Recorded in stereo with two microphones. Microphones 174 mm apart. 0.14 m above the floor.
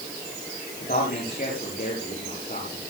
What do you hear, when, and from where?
0.8 s a man speaking: 50° left (ahead or behind), 9 m